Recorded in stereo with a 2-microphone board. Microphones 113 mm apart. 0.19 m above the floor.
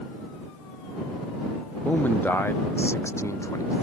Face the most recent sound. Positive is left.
turn(degrees=30)  # may be behind; listen again after turning